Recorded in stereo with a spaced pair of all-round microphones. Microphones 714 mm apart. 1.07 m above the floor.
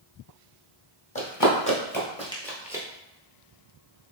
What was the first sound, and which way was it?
Running footsteps, 30° left (ahead or behind).